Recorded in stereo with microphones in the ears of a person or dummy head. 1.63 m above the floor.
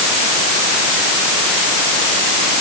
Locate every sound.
Only background noise.